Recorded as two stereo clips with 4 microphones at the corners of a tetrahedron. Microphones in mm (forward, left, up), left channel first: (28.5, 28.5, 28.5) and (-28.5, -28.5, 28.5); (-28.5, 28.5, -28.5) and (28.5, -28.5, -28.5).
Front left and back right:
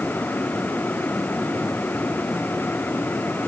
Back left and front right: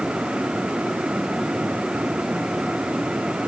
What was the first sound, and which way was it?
Only background noise.